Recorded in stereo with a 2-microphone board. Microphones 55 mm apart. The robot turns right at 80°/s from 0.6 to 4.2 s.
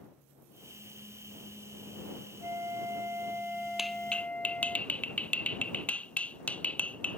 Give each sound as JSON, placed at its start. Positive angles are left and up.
{"t": 2.4, "sound": "a flute", "azimuth_deg": -110}
{"t": 3.8, "sound": "a clap", "side_deg": -5}